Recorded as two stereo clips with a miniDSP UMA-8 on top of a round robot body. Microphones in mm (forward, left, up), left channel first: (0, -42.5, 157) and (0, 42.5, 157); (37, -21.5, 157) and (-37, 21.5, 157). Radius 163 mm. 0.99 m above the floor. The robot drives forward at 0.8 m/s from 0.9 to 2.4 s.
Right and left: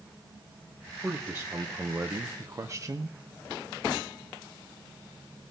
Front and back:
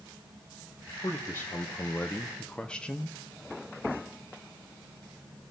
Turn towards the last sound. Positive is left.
turn(degrees=45)